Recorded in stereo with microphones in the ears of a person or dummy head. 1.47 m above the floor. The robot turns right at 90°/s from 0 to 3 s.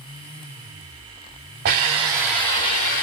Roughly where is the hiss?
Ahead right.